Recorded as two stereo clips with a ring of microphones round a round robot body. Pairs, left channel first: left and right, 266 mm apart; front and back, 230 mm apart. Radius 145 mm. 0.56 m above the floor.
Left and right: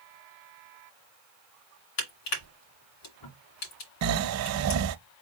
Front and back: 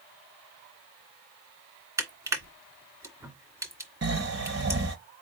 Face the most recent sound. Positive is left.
turn(degrees=-125)